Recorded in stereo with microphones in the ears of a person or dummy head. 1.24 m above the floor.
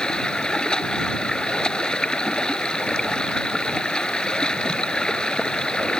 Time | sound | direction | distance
0.0 | running water | 5° left (ahead or behind) | ?